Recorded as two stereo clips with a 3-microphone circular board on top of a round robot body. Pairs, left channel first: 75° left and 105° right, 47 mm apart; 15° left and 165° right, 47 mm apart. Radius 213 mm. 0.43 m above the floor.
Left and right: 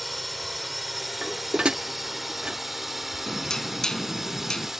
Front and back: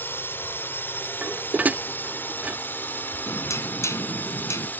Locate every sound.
0.0 s a drone: 20° right; by 4.8 s 25° right
1.2 s dishes clattering: 155° right
3.3 s knocking: 5° right